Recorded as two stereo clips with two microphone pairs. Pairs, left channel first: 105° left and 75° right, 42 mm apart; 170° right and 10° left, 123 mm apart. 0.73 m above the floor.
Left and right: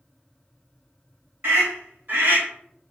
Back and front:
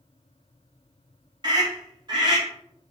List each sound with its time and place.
1.4 s a scream: 40° right, 4 m